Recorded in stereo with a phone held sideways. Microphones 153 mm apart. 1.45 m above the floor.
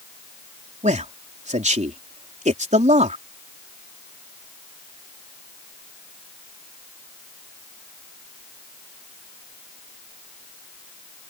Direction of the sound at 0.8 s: 50° right (ahead or behind).